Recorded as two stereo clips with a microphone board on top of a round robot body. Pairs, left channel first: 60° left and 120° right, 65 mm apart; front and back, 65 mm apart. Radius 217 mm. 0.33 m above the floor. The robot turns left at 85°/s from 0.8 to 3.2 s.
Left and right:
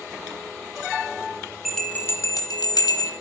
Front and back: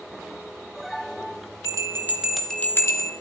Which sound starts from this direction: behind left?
A bell, at 1.6 s.